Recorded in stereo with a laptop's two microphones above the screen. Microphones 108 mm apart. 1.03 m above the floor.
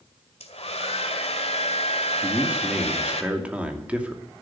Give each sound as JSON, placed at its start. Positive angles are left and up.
{"t": 0.4, "sound": "a hair dryer", "side_deg": 75, "distance_m": 1.8}
{"t": 2.2, "sound": "a man speaking", "side_deg": -15, "distance_m": 2.5}